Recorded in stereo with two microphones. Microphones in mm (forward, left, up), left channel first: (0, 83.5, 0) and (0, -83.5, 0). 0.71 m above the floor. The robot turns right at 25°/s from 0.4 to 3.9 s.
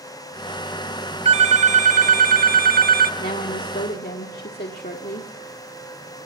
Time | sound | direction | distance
1.2 | a phone ringing | 135° right | 0.9 m
3.2 | a woman speaking | 60° left (ahead or behind) | 1.4 m